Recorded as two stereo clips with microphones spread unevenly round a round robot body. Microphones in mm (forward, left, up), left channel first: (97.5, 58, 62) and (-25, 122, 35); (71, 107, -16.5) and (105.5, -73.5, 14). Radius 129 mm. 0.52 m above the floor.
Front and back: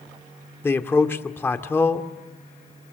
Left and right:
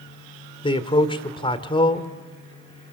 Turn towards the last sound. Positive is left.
turn(degrees=50)